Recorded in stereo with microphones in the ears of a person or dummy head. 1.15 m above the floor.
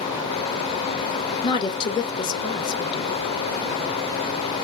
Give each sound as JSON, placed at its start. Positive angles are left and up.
{"t": 1.4, "sound": "a woman speaking", "side_deg": 25, "distance_m": 0.7}